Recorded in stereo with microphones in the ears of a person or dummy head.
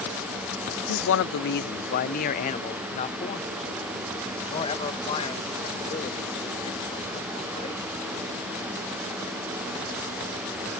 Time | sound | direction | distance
0.9 | a man speaking | 75° left (ahead or behind) | ?